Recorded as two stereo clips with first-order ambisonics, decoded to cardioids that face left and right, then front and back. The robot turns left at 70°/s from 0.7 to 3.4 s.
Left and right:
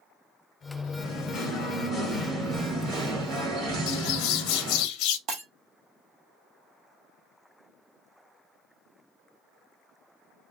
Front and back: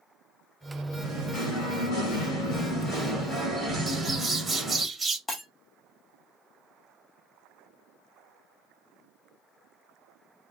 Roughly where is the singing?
Left.